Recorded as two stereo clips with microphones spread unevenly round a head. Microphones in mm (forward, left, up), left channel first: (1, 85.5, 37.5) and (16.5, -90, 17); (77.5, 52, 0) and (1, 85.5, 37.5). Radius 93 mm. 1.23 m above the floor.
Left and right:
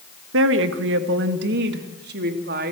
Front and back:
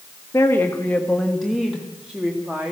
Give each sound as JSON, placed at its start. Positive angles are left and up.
{"t": 0.3, "sound": "a woman speaking", "azimuth_deg": -95, "distance_m": 1.4}